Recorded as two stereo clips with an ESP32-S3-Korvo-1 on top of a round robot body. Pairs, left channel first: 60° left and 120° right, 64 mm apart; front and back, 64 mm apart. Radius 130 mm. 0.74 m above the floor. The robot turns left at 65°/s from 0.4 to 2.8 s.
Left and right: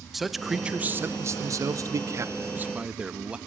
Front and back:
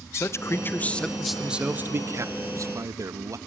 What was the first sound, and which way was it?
A man speaking, 35° right.